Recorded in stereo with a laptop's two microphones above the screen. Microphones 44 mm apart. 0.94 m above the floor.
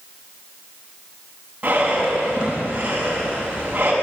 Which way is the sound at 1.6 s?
30° right (ahead or behind).